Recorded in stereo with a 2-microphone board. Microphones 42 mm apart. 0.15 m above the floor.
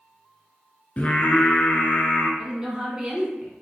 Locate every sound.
1.0 s singing: 35° left (ahead or behind), 0.8 m
2.4 s a woman speaking: 20° right (ahead or behind), 1.3 m